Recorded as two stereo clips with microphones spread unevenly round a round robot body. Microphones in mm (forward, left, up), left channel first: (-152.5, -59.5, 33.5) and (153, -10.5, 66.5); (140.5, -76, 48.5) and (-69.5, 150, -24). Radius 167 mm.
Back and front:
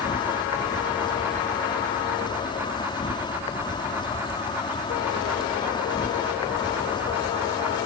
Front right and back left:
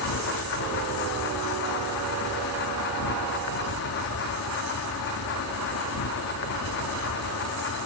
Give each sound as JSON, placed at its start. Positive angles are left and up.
{"t": 0.0, "sound": "an insect", "azimuth_deg": -95}